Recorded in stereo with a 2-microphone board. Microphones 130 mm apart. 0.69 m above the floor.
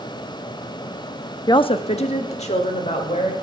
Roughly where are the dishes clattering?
No dishes clattering in this recording.